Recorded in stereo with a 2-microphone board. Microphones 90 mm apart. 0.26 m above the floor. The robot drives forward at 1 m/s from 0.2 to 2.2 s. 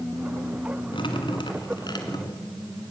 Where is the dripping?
65° left (ahead or behind), 2.0 m; by 2.5 s 50° left (ahead or behind), 2.5 m.